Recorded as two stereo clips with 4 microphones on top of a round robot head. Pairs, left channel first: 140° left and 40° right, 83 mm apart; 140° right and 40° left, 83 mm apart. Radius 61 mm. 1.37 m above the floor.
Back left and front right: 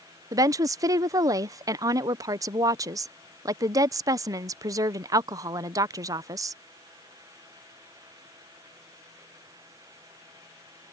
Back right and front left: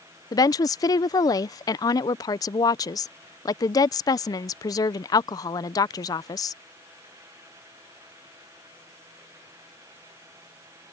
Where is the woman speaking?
90° right.